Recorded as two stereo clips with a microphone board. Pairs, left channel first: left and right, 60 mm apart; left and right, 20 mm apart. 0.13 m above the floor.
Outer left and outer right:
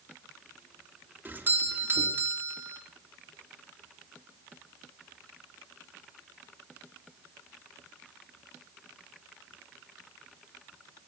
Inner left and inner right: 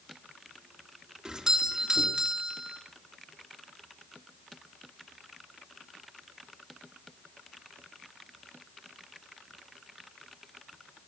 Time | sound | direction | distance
1.2 | a doorbell | 35° right (ahead or behind) | 2.5 m